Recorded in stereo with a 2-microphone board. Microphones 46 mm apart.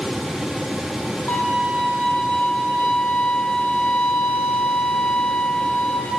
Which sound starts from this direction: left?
A violin, at 1.3 s.